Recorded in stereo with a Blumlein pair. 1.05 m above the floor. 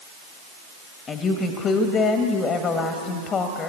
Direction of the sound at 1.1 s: 20° left.